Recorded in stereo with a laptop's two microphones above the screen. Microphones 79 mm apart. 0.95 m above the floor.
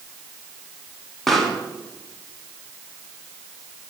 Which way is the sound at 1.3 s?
5° left (ahead or behind).